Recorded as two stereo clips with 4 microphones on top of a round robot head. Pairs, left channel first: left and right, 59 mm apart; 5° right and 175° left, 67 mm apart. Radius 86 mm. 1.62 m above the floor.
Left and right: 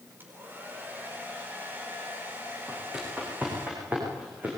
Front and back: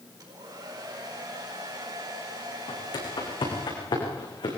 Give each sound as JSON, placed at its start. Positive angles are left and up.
{"t": 0.2, "sound": "a hair dryer", "azimuth_deg": -145, "distance_m": 4.5}
{"t": 2.7, "sound": "footsteps", "azimuth_deg": -15, "distance_m": 8.5}